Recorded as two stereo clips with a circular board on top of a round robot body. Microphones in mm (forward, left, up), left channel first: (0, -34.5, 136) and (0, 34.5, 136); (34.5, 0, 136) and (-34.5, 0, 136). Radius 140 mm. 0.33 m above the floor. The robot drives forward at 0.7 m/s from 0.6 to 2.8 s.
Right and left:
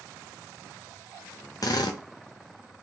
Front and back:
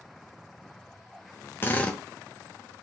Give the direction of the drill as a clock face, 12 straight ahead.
2 o'clock.